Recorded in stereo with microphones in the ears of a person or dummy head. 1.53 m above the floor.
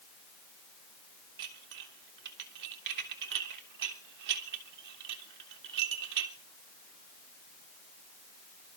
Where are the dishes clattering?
55° right (ahead or behind), 1.1 m.